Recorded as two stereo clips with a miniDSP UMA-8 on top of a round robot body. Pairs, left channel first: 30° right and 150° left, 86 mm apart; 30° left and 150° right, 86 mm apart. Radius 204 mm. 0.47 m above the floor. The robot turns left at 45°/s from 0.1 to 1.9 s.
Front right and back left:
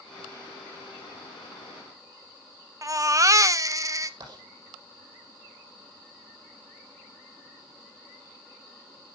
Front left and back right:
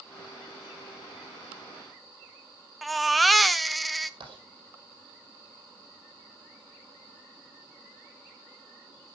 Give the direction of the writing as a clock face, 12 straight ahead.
6 o'clock.